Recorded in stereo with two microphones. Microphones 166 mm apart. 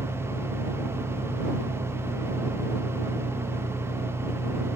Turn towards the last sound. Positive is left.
turn(degrees=40)  # may be behind; listen again after turning